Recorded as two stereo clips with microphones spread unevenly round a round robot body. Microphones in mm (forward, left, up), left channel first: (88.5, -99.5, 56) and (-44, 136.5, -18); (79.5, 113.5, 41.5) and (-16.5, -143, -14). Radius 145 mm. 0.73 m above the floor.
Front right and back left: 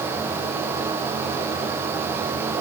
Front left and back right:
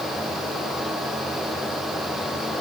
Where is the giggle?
I don't hear a giggle.